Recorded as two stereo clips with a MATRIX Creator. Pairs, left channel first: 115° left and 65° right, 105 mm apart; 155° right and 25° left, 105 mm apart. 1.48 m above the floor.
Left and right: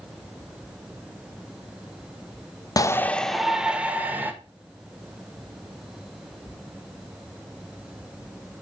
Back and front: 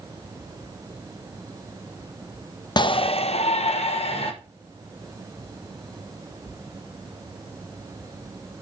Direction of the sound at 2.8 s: 160° left.